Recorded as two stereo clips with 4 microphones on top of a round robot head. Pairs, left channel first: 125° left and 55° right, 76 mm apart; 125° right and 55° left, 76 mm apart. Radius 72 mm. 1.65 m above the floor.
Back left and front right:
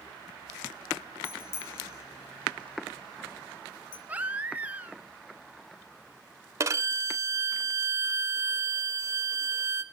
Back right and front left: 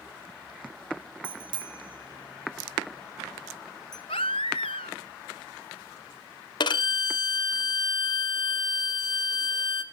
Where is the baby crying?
125° right, 0.8 m.